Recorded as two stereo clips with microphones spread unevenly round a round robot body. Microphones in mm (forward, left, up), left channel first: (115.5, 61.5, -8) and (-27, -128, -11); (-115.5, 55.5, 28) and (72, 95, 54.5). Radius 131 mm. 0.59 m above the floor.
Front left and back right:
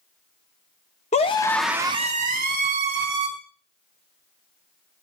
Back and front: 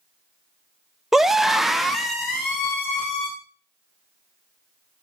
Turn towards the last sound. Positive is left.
turn(degrees=-80)